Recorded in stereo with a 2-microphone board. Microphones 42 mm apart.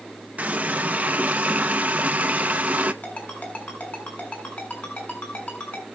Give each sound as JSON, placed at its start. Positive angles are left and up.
{"t": 0.4, "sound": "a running tap", "side_deg": -40, "distance_m": 0.9}
{"t": 3.0, "sound": "a ringtone", "side_deg": 45, "distance_m": 7.0}